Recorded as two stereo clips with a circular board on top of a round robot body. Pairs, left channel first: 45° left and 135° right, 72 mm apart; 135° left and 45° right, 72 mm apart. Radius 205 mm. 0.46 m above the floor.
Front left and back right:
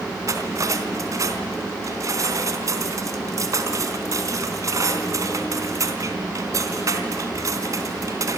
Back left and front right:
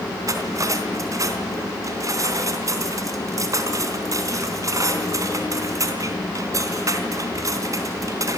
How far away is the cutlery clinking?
About 3.5 m.